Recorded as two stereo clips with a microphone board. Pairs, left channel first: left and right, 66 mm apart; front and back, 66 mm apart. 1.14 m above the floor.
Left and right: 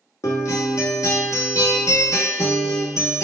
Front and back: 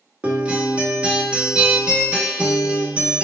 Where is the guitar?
105° left, 0.9 m.